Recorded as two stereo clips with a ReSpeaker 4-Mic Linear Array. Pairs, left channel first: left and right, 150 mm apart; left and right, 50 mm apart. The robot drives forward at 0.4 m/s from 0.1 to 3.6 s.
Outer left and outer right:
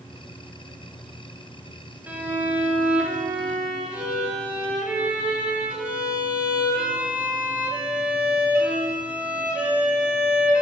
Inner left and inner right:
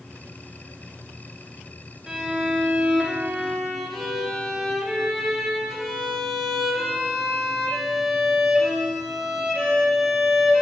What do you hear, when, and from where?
2.1 s a violin: 10° right (ahead or behind), 0.8 m; by 10.6 s 5° right (ahead or behind), 1.2 m